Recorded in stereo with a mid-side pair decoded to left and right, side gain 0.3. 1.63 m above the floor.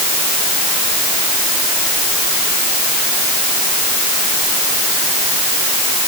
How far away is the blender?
No blender in this recording.